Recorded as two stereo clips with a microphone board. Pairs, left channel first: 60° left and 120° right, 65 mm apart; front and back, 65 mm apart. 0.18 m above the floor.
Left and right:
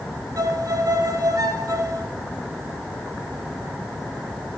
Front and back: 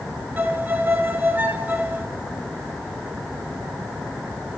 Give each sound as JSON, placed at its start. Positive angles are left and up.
{"t": 0.4, "sound": "a violin", "azimuth_deg": -125, "distance_m": 0.8}